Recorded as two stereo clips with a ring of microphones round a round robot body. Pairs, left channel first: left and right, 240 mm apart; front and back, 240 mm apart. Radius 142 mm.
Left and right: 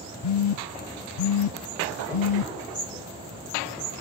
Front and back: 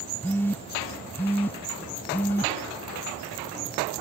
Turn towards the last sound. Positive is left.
turn(degrees=80)